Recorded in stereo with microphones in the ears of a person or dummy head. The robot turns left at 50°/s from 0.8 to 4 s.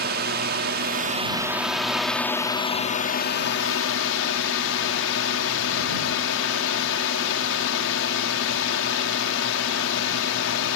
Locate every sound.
0.0 s a drone: 125° right; by 10.8 s 75° left